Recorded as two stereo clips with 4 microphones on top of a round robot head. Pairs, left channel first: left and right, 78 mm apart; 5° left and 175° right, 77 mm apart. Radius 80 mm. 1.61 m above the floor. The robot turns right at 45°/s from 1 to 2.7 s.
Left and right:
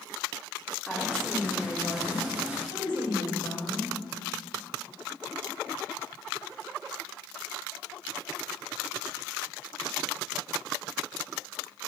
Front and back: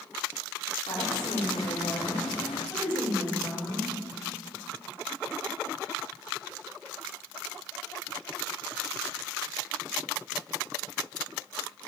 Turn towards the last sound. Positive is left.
turn(degrees=75)